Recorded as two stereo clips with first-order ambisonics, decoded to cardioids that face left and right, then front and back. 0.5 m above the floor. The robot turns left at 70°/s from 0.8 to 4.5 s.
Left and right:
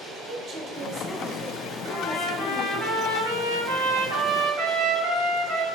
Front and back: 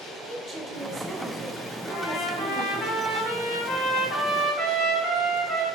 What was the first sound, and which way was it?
A woman speaking, 125° right.